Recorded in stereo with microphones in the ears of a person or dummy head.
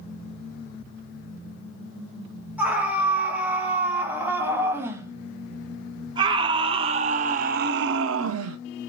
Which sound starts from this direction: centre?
A scream, at 2.6 s.